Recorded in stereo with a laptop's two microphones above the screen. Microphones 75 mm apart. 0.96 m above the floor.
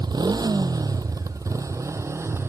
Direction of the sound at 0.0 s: 65° right (ahead or behind).